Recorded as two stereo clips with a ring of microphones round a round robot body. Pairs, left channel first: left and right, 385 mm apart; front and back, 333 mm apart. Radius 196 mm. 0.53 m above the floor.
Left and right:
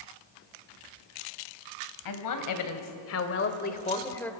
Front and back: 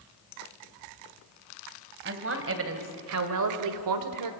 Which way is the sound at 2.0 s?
125° left.